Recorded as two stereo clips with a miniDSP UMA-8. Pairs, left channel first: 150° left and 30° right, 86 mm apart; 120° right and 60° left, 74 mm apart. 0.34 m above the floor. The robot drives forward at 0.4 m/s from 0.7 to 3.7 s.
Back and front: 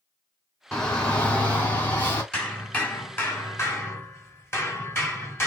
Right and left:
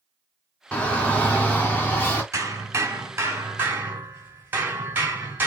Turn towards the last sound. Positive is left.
turn(degrees=110)